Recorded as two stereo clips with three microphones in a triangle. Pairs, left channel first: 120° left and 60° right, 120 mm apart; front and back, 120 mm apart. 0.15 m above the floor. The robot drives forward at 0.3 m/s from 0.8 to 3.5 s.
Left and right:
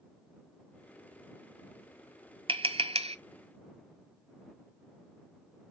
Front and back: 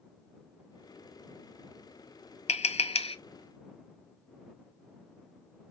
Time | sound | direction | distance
2.5 | tapping | 20° right | 0.6 m